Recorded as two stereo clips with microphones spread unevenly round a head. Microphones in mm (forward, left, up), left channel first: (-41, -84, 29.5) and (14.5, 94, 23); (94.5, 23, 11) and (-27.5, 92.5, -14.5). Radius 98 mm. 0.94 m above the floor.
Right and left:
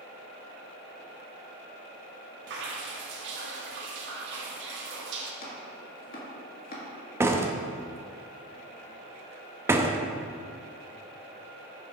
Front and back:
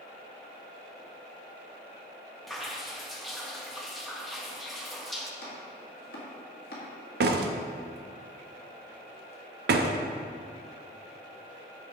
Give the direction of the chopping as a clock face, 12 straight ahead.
2 o'clock.